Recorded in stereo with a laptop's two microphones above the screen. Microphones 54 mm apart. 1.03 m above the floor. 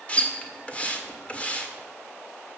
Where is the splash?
25° left (ahead or behind), 1.6 m.